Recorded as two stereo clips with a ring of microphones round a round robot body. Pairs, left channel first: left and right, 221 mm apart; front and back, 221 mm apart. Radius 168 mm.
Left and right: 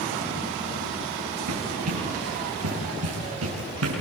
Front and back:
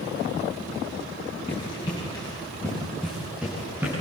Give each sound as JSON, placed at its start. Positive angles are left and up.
{"t": 1.5, "sound": "running footsteps", "azimuth_deg": -75, "distance_m": 8.0}